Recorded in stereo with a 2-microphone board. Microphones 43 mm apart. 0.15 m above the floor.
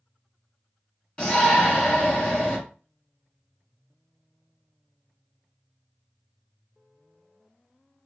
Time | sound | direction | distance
1.2 | a shout | 30° left (ahead or behind) | 1.5 m